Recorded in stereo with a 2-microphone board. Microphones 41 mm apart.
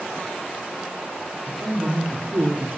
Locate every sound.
1.5 s a man speaking: 55° right (ahead or behind), 2.5 m